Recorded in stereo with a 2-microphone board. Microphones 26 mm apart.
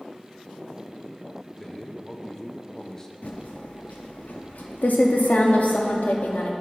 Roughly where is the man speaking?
Centre.